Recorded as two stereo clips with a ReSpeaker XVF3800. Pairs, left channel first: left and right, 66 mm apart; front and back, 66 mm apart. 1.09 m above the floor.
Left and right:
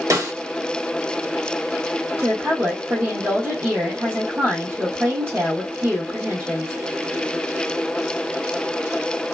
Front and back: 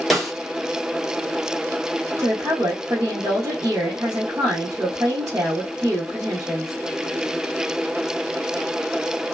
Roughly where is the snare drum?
Right.